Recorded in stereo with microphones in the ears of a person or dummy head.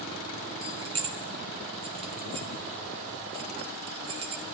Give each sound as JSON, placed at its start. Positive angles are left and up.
{"t": 0.6, "sound": "keys jangling", "side_deg": -30, "distance_m": 1.1}